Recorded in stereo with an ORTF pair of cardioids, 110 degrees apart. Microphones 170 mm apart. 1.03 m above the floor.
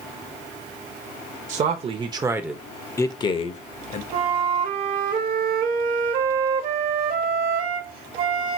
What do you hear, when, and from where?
1.5 s a man speaking: 50° right, 0.9 m; by 4.0 s 50° left, 1.0 m
4.1 s a flute: 55° right, 1.1 m